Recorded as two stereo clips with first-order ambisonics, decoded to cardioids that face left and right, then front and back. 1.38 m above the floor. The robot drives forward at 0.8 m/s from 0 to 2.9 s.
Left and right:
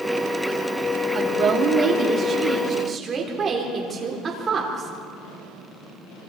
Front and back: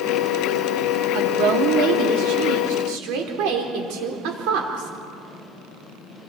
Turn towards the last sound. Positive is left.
turn(degrees=-160)